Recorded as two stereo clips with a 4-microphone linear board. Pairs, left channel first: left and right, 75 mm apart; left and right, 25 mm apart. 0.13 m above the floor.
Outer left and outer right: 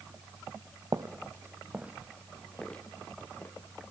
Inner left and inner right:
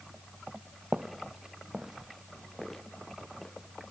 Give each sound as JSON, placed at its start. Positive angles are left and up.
{"t": 0.9, "sound": "footsteps", "side_deg": -60, "distance_m": 1.3}